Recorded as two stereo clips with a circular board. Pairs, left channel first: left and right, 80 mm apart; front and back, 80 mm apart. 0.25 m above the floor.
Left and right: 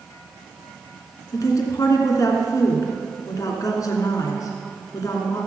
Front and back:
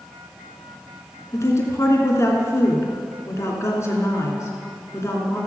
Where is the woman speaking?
50° left, 2.5 m.